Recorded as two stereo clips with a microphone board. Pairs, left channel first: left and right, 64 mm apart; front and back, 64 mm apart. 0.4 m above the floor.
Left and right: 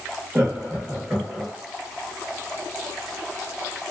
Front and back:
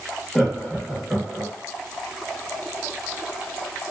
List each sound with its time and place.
0.3 s laughter: 70° right, 1.0 m; by 1.5 s 140° right, 0.8 m